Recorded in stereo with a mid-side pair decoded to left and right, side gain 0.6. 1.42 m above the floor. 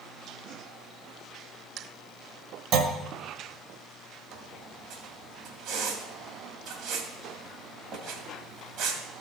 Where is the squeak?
70° right, 2.0 m.